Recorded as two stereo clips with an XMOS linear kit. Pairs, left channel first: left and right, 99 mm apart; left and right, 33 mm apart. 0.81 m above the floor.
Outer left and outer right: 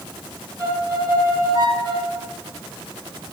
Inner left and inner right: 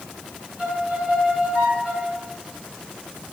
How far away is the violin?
About 3.5 m.